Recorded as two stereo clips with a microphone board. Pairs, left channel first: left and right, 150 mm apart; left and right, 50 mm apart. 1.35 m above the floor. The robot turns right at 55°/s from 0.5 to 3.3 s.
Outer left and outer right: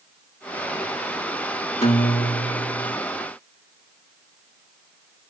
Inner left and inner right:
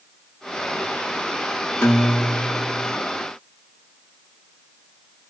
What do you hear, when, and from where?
1.8 s a guitar: 70° left, 1.0 m; by 3.0 s 135° left, 1.0 m